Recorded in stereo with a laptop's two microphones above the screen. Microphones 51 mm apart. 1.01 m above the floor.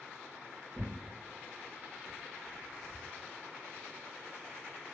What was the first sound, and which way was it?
Tearing paper, 5° right (ahead or behind).